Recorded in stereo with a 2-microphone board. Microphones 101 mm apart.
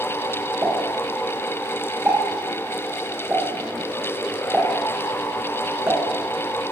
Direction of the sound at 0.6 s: 30° right (ahead or behind).